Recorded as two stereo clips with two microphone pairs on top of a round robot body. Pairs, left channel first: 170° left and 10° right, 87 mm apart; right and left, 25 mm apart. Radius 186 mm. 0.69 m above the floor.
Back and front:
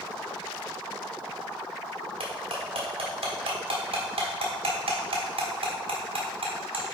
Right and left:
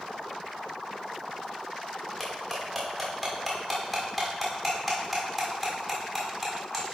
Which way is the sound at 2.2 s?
Straight ahead.